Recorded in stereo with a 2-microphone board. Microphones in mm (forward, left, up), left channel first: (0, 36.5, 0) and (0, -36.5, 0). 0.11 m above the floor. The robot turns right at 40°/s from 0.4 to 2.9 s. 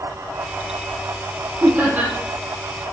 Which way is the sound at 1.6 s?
35° right (ahead or behind).